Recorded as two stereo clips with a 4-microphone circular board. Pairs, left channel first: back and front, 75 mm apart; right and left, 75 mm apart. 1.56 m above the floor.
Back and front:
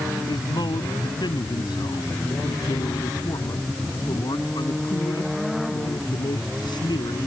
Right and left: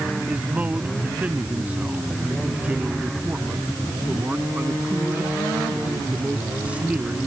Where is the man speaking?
160° left; by 7.3 s 165° left.